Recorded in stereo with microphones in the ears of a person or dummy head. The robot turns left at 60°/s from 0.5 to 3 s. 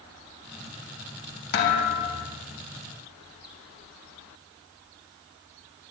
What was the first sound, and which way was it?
A thud, 70° left.